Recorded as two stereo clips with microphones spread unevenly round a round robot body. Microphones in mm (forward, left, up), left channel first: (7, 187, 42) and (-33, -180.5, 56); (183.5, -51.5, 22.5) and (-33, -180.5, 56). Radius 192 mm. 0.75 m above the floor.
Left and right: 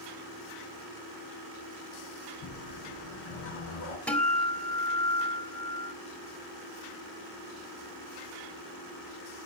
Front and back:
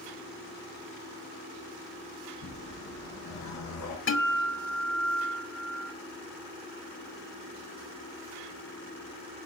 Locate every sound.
2.4 s a whoosh: 55° left, 4 m
4.1 s a guitar: 5° right, 2.5 m